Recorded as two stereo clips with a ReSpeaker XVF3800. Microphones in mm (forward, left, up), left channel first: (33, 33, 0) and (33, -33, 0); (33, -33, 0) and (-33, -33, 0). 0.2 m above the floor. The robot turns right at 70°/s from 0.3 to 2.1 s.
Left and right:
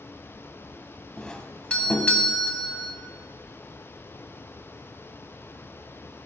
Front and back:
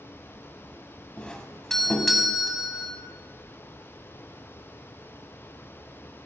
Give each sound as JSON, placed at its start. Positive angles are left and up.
{"t": 1.2, "sound": "a doorbell", "azimuth_deg": 35, "distance_m": 1.5}